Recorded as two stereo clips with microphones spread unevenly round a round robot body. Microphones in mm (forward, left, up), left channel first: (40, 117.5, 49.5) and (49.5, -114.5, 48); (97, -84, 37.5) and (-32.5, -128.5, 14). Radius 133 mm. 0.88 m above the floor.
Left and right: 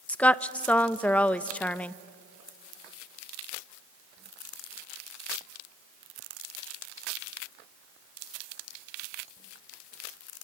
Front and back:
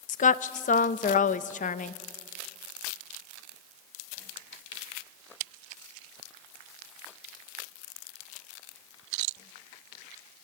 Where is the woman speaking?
10° left, 0.7 m.